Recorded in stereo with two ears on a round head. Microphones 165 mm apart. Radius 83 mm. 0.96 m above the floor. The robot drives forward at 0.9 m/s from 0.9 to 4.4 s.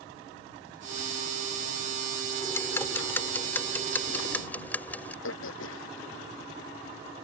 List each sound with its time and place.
2.4 s ticking: 15° left (ahead or behind); by 5.1 s 10° left (ahead or behind)
5.2 s throat clearing: 80° left